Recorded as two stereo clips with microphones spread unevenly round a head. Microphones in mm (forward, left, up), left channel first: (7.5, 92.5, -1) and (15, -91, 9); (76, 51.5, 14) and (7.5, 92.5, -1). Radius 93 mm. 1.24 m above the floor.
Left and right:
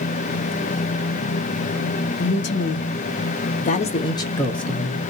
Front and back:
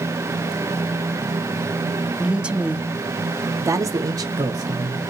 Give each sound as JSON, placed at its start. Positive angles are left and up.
{"t": 2.2, "sound": "a man speaking", "azimuth_deg": 75, "distance_m": 1.1}